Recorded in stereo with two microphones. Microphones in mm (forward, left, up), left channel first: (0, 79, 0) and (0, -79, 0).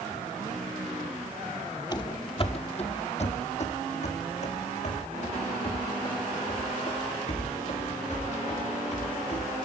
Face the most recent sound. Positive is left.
turn(degrees=50)  # may be behind; listen again after turning